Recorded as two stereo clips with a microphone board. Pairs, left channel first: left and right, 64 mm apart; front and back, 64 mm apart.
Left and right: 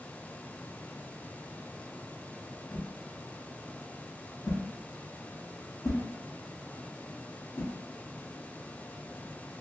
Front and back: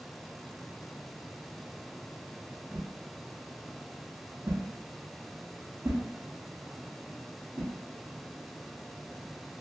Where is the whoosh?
130° left, 0.6 m.